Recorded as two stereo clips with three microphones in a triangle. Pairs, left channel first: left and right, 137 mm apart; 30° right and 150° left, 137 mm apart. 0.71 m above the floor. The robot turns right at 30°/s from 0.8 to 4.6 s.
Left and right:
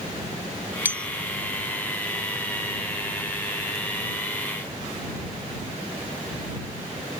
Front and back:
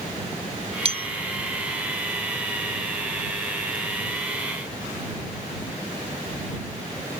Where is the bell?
165° right; by 1.1 s 160° right.